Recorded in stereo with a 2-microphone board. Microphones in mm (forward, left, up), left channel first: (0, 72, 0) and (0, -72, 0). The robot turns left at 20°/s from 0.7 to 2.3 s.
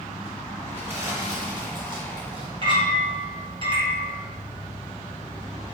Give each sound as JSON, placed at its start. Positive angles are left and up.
{"t": 0.7, "sound": "crumpling", "azimuth_deg": -15, "distance_m": 3.0}
{"t": 2.6, "sound": "a clink", "side_deg": -40, "distance_m": 2.5}